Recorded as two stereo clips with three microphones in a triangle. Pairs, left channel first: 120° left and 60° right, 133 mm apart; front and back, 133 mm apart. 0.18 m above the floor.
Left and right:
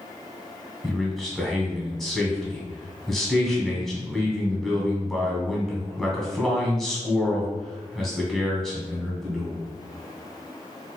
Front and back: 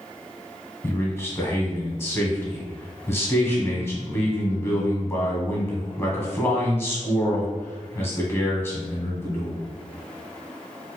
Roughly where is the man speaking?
Ahead left.